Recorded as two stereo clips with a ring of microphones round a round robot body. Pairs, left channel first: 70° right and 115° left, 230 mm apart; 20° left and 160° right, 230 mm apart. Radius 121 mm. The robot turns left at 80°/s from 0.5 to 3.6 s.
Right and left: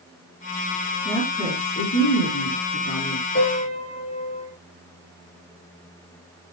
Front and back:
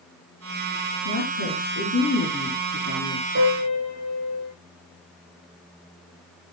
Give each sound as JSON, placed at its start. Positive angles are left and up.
{"t": 1.1, "sound": "a woman speaking", "azimuth_deg": 40, "distance_m": 5.0}
{"t": 3.4, "sound": "a piano", "azimuth_deg": -115, "distance_m": 4.5}